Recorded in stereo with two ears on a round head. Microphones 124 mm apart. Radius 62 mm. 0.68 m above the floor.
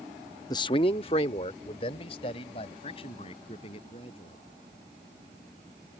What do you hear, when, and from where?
0.5 s a man speaking: 25° left (ahead or behind); by 4.4 s 40° left (ahead or behind)